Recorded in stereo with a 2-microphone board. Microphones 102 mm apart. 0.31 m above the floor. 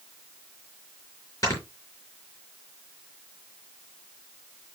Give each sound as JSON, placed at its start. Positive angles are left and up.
{"t": 1.4, "sound": "snoring", "side_deg": 30, "distance_m": 5.0}